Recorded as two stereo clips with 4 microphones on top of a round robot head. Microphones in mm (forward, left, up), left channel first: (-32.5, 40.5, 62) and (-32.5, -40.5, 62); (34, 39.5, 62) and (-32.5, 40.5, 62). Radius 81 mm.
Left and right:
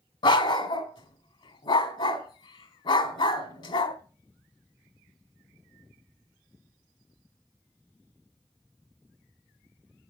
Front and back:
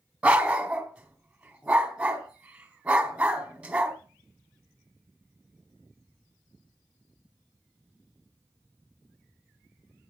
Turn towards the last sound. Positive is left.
turn(degrees=110)